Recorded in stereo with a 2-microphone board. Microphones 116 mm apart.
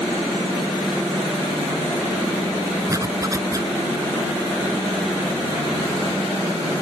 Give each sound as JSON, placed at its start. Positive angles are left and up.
{"t": 2.9, "sound": "a zipper", "side_deg": -30}